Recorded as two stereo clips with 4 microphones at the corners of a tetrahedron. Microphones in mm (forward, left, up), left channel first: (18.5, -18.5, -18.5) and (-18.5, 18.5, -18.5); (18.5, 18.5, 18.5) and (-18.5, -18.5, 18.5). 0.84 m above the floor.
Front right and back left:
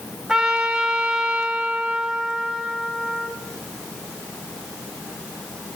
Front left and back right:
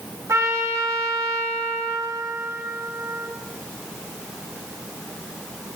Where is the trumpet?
150° right, 0.9 m.